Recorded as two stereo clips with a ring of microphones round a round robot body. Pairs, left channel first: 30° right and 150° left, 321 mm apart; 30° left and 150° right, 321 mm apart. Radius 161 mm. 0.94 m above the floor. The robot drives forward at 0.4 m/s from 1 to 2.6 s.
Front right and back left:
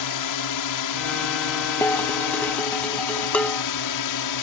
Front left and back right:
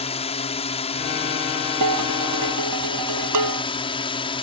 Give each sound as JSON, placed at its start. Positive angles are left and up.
{"t": 0.0, "sound": "a drone", "azimuth_deg": -40}
{"t": 1.8, "sound": "dishes clattering", "azimuth_deg": -115}